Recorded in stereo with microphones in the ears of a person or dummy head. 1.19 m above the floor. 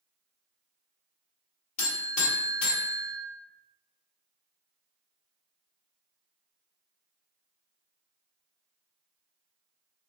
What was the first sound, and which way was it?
A buzzer, 45° left (ahead or behind).